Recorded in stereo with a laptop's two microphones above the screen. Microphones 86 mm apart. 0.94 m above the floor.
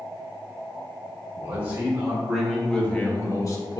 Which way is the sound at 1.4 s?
25° right (ahead or behind).